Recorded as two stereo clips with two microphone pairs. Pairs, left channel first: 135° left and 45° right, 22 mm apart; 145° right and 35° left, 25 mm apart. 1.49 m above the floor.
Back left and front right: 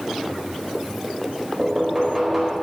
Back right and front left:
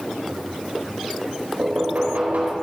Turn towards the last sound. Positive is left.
turn(degrees=35)